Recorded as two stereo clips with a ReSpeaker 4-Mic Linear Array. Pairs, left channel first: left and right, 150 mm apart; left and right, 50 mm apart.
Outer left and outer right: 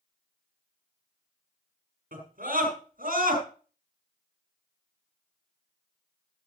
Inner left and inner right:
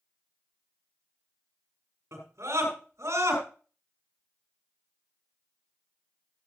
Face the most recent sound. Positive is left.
turn(degrees=-75)  # may be behind; listen again after turning